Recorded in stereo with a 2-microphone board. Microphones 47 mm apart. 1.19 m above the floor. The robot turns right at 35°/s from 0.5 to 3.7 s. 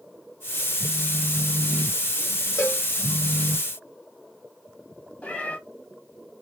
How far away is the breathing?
No breathing in this recording.